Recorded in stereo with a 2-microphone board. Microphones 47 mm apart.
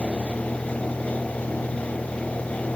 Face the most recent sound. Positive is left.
turn(degrees=0)  # may be behind; listen again after turning